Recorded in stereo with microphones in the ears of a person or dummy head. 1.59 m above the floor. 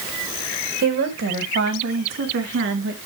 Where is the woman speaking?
50° right (ahead or behind), 2.5 m; by 3.0 s 60° right (ahead or behind), 3.5 m.